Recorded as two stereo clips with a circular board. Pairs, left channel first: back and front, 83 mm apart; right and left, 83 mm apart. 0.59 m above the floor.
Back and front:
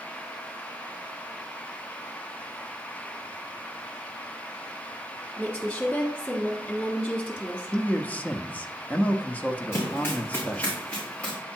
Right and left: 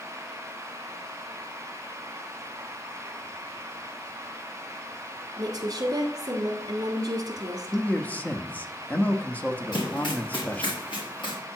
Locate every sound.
5.4 s a woman speaking: 105° left, 1.6 m
7.7 s a man speaking: 135° right, 0.7 m
9.7 s running footsteps: 120° right, 3.5 m; by 11.4 s 105° right, 4 m